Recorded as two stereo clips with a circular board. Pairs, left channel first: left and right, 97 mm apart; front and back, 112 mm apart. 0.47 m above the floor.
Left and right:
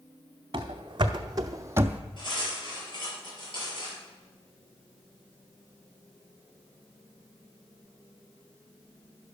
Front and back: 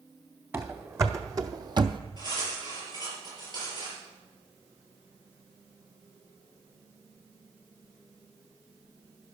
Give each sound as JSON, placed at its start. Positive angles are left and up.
{"t": 0.5, "sound": "running footsteps", "azimuth_deg": -115, "distance_m": 1.4}
{"t": 2.2, "sound": "cutlery clinking", "azimuth_deg": 130, "distance_m": 6.0}